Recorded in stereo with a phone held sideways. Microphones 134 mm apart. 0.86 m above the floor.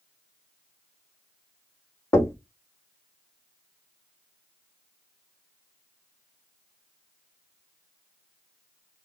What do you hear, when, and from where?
2.1 s knocking: 20° left (ahead or behind), 0.8 m